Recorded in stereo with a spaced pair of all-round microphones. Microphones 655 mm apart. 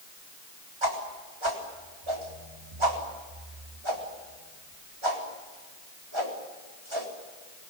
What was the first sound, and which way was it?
A whoosh, 45° right (ahead or behind).